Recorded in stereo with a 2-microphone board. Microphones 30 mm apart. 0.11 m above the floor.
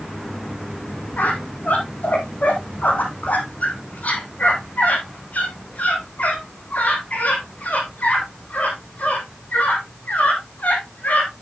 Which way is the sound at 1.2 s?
60° left (ahead or behind).